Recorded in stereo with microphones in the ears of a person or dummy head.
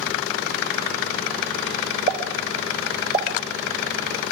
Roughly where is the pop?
Right.